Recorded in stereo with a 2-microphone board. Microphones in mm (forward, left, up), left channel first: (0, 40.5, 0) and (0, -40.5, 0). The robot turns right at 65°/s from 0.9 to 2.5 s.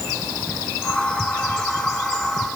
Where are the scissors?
No scissors in this recording.